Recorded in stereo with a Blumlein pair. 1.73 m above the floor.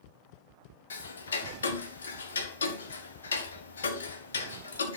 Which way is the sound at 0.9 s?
70° left.